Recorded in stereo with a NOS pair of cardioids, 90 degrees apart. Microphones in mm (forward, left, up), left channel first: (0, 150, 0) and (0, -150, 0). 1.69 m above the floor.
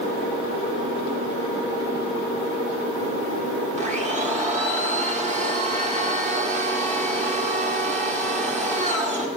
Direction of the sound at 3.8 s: 20° right.